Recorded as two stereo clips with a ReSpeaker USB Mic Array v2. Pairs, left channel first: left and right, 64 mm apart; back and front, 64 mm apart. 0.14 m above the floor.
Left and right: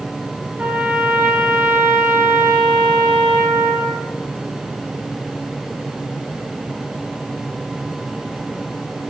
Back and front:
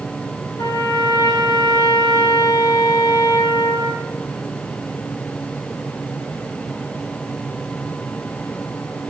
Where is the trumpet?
160° right, 1.0 m.